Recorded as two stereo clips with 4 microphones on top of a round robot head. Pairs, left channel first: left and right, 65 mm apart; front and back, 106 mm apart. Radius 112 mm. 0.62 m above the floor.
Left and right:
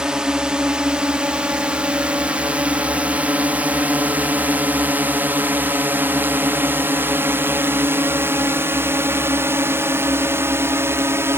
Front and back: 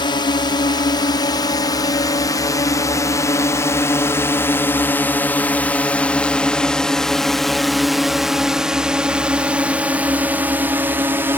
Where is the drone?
15° right; by 11.4 s 120° right.